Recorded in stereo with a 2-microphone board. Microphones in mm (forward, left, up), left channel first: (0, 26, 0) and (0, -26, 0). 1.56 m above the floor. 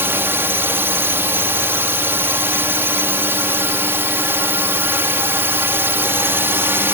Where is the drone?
45° right (ahead or behind).